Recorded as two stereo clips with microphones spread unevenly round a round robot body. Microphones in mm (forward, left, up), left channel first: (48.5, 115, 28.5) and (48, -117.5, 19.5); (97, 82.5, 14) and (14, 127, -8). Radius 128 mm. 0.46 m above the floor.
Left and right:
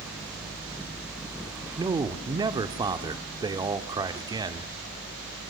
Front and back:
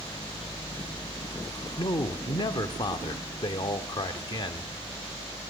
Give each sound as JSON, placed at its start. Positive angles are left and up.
{"t": 1.8, "sound": "a man speaking", "azimuth_deg": -35, "distance_m": 1.2}